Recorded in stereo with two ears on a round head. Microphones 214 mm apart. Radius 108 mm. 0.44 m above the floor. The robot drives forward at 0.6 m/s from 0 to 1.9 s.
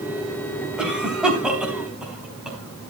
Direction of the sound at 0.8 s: 5° right (ahead or behind).